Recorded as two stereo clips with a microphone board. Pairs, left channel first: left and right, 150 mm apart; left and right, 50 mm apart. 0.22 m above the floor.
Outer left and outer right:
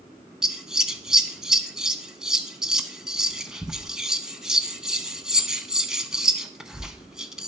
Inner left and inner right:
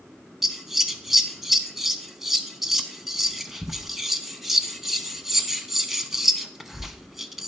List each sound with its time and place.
0.4 s scissors: 5° right (ahead or behind), 0.6 m